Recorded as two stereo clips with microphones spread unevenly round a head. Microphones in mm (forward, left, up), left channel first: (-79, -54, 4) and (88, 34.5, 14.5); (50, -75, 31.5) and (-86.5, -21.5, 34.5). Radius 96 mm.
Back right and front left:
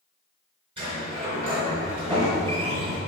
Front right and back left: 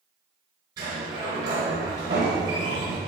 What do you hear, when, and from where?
0.8 s a sliding door: 90° left, 4 m